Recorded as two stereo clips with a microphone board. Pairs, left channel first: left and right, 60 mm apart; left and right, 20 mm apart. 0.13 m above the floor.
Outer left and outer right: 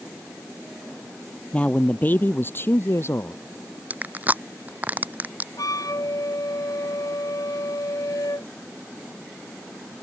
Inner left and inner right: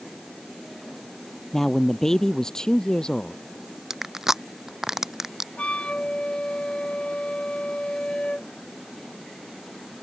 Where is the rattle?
No rattle in this recording.